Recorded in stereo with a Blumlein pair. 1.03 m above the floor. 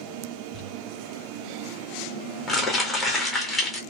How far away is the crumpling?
About 1.3 m.